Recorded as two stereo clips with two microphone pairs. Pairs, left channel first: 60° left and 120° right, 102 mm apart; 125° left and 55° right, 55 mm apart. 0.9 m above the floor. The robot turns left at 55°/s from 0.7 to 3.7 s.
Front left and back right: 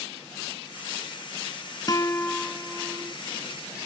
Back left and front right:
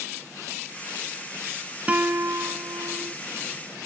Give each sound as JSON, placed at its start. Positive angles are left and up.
{"t": 1.9, "sound": "a guitar", "azimuth_deg": 10}